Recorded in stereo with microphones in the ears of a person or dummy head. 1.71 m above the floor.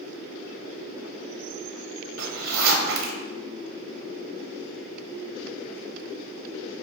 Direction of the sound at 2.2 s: 80° right.